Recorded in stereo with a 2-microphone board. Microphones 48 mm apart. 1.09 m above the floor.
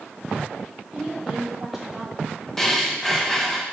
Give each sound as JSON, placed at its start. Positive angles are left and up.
{"t": 0.9, "sound": "a woman speaking", "side_deg": -5, "distance_m": 2.0}
{"t": 2.6, "sound": "breathing", "side_deg": 10, "distance_m": 0.8}